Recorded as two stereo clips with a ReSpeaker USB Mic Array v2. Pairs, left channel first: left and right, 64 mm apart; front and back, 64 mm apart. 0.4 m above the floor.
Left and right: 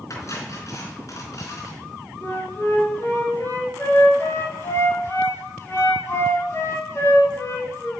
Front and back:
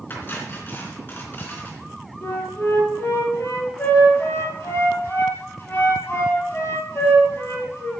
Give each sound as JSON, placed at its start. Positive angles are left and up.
{"t": 0.1, "sound": "cutlery clinking", "azimuth_deg": 55, "distance_m": 3.5}
{"t": 2.2, "sound": "a flute", "azimuth_deg": 50, "distance_m": 7.0}